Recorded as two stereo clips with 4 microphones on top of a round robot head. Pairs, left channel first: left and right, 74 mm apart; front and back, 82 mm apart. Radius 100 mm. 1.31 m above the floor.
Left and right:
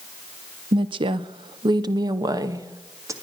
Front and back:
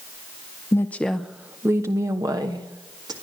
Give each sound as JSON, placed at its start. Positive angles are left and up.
{"t": 0.7, "sound": "a woman speaking", "azimuth_deg": -65, "distance_m": 0.6}